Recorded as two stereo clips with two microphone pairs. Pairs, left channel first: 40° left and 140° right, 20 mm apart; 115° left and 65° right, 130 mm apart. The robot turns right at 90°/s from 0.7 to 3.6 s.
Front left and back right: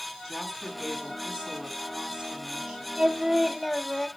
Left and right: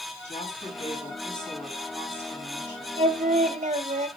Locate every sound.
0.2 s a woman speaking: 140° left, 5 m; by 2.9 s 25° right, 5 m
3.0 s singing: 100° right, 0.7 m; by 4.1 s 40° right, 0.7 m